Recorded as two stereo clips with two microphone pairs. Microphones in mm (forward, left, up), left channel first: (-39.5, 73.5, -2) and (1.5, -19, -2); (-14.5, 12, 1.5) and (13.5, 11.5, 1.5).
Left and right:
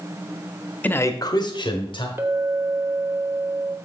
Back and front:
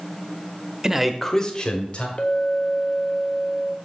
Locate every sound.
0.8 s a man speaking: 60° left, 0.7 m; by 2.1 s 145° left, 1.3 m
2.2 s a clink: 135° right, 0.9 m